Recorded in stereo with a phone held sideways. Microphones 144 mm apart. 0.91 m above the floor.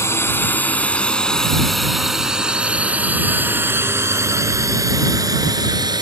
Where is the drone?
15° left (ahead or behind); by 6.0 s 30° right (ahead or behind).